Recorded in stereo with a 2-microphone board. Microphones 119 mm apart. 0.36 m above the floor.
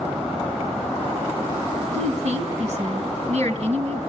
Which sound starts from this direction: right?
A woman speaking, at 1.9 s.